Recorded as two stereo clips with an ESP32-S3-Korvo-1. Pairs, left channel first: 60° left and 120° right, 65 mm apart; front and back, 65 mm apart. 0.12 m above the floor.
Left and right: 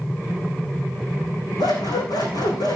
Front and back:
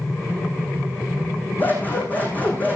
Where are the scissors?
65° left, 6 m.